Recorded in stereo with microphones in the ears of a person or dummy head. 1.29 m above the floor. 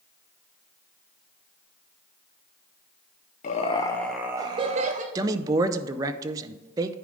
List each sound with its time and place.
3.4 s laughter: 40° left (ahead or behind), 0.5 m; by 5.0 s 45° right (ahead or behind), 0.8 m
5.2 s a man speaking: 20° right (ahead or behind), 0.5 m